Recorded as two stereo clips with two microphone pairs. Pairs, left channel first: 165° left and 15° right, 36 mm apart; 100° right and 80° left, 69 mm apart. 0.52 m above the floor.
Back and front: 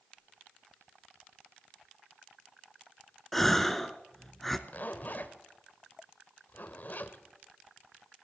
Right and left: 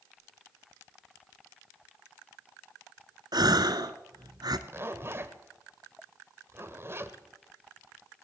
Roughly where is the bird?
No bird in this recording.